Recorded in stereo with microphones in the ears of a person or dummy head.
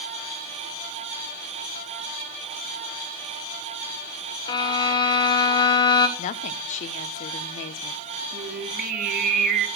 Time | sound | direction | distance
4.5 | a violin | 25° left (ahead or behind) | 1.3 m
6.2 | a woman speaking | 45° left (ahead or behind) | 0.9 m
8.3 | singing | 50° right (ahead or behind) | 2.0 m